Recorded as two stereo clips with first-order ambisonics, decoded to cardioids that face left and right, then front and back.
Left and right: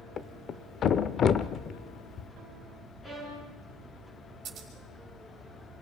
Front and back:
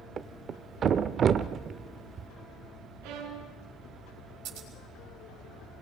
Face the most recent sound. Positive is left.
turn(degrees=-145)